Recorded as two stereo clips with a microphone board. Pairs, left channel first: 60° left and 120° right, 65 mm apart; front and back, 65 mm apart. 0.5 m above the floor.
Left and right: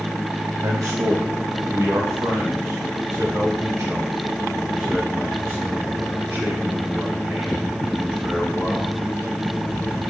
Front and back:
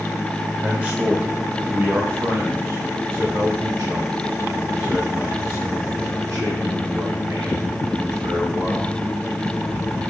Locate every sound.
0.6 s a man speaking: 115° right, 1.6 m; by 8.9 s 175° left, 5.5 m